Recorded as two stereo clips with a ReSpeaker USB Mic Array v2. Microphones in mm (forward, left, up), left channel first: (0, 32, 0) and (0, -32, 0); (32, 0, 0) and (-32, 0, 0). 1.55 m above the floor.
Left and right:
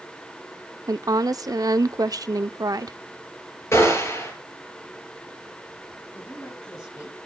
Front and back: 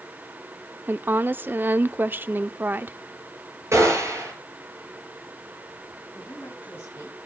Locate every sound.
0.9 s a woman speaking: 120° right, 0.5 m
3.7 s a gunshot: 135° left, 5.5 m
6.1 s a woman speaking: 55° left, 7 m